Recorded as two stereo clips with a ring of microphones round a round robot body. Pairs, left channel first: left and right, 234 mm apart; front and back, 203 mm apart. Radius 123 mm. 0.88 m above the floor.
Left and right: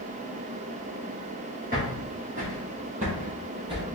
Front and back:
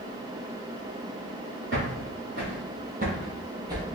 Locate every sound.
1.7 s footsteps: 145° right, 1.6 m; by 3.9 s 125° right, 0.9 m